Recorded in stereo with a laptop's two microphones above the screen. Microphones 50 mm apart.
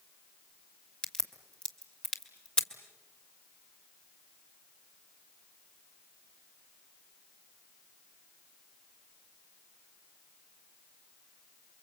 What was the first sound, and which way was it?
A crack, 20° left (ahead or behind).